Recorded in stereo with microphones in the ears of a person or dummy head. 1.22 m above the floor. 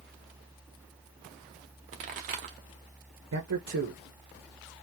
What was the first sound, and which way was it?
A pop, 45° right (ahead or behind).